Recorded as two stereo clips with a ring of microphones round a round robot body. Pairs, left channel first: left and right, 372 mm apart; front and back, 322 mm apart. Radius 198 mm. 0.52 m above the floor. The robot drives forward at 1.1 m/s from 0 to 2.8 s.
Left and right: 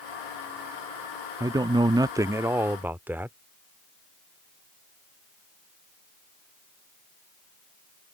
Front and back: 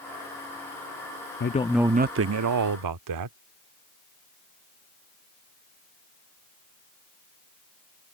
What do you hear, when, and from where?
1.4 s a man speaking: 15° right; by 3.4 s 175° right